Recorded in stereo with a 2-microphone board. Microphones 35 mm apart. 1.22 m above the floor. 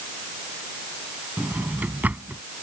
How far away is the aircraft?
I don't hear an aircraft.